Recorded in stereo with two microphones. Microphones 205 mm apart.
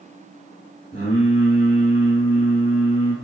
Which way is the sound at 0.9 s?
30° left (ahead or behind).